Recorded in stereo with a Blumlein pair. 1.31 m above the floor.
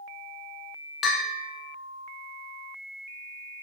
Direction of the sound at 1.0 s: 25° left.